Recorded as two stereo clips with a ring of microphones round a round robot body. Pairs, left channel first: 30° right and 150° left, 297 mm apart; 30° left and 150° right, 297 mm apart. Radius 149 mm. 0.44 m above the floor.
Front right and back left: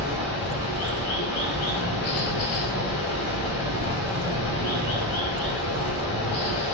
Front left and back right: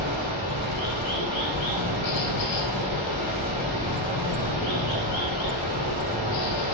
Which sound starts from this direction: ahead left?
Running water, at 0.0 s.